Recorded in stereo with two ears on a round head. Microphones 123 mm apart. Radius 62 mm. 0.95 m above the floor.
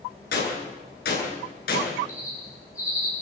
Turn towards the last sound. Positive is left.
turn(degrees=25)  # may be behind; listen again after turning